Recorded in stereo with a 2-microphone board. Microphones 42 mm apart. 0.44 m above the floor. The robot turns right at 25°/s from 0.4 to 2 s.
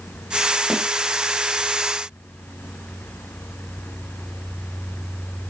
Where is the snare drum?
Centre (ahead or behind), 2.5 m.